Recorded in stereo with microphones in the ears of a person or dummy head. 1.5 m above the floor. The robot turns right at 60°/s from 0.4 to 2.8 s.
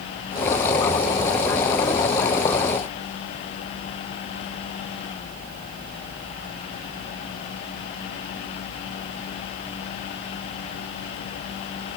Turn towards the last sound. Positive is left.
No sound to turn to.